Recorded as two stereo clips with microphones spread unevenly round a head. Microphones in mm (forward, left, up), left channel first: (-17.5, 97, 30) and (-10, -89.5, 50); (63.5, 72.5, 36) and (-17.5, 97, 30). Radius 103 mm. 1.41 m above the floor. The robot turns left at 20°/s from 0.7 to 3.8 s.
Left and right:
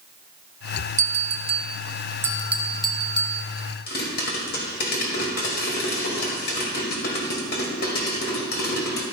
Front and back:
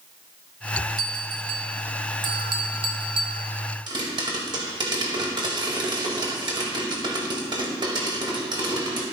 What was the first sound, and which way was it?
A bell, 145° right.